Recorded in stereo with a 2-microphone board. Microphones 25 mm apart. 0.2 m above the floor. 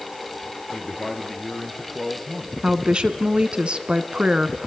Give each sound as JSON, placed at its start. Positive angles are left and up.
{"t": 0.7, "sound": "a man speaking", "side_deg": 15, "distance_m": 3.5}
{"t": 2.6, "sound": "a woman speaking", "side_deg": -50, "distance_m": 1.7}